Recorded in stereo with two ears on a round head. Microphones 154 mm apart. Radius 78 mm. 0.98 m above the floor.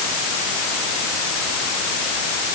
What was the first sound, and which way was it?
Only background noise.